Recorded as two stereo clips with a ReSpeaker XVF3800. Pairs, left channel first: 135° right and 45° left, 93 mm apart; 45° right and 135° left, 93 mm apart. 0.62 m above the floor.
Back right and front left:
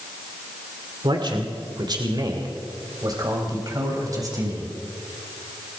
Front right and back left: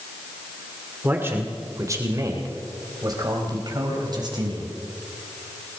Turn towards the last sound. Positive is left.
turn(degrees=95)